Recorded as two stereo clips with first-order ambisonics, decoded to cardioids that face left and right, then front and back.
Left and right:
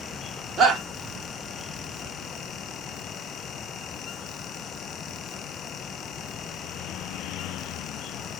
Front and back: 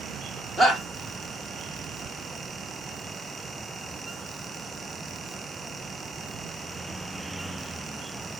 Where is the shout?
75° right, 1.0 m.